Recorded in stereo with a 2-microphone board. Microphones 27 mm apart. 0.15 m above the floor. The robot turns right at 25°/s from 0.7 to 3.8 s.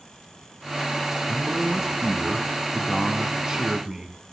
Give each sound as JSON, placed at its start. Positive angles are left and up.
{"t": 1.3, "sound": "a man speaking", "side_deg": -10, "distance_m": 1.1}